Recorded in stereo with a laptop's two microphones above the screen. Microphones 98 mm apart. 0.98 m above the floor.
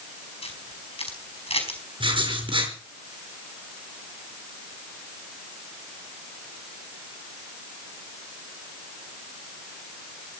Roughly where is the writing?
Right.